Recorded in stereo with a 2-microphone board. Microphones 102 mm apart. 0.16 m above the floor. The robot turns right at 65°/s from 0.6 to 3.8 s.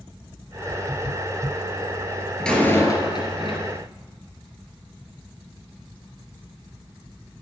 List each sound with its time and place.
2.4 s a door slam: 5° left, 2.5 m; by 3.8 s 95° left, 2.5 m